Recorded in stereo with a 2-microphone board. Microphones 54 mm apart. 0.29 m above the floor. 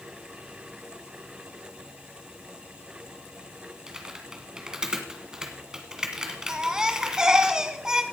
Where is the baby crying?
15° right (ahead or behind), 1.0 m.